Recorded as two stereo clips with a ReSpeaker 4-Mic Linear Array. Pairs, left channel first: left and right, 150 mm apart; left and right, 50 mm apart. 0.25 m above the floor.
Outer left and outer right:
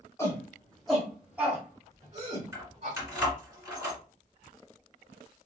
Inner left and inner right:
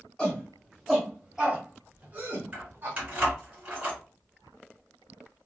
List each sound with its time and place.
0.2 s a shout: 20° left (ahead or behind), 1.6 m; by 3.0 s 45° right (ahead or behind), 1.8 m
2.5 s keys jangling: 20° right (ahead or behind), 2 m